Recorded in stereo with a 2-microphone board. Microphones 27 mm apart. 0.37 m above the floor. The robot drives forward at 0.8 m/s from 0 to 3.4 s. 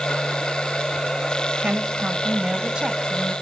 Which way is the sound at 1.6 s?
50° right (ahead or behind).